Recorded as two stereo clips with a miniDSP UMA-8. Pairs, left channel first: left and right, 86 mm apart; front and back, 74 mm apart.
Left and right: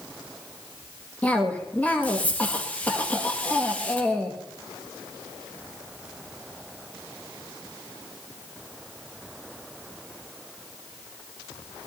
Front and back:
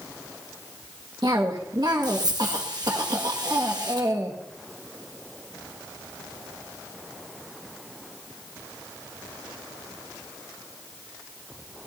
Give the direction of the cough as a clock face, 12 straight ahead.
7 o'clock.